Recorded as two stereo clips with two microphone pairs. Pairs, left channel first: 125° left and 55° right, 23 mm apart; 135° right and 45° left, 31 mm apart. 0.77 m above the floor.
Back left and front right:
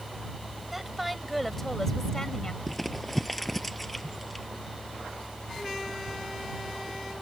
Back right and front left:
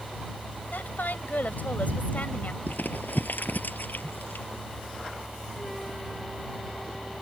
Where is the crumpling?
150° right.